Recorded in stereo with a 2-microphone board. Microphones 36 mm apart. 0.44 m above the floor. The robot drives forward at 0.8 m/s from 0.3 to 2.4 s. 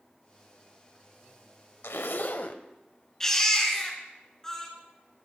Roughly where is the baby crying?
Centre.